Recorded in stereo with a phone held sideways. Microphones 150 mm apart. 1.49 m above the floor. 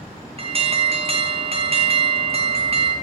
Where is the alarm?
40° right (ahead or behind), 0.9 m.